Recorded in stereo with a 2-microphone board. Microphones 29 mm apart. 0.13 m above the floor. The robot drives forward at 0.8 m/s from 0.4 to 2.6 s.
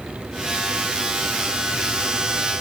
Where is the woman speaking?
I don't hear a woman speaking.